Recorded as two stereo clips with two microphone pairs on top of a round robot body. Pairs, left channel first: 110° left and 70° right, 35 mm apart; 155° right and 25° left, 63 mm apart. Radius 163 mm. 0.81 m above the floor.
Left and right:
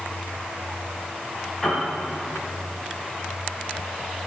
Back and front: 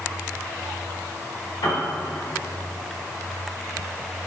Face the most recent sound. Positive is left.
turn(degrees=-170)